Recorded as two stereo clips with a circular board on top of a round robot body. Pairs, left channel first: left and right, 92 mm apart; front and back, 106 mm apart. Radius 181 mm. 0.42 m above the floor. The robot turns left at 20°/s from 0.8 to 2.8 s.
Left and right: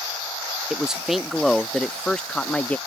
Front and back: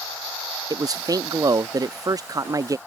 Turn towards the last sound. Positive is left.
turn(degrees=155)